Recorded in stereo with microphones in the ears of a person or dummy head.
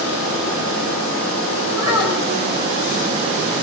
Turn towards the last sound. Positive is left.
turn(degrees=-20)  # may be behind; listen again after turning